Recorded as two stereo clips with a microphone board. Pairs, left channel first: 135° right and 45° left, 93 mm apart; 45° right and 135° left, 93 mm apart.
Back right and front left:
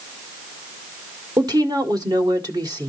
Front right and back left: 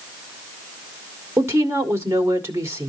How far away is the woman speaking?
About 1.8 m.